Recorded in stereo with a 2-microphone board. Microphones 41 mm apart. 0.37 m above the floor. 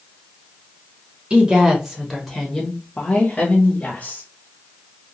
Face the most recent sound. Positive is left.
turn(degrees=40)  # may be behind; listen again after turning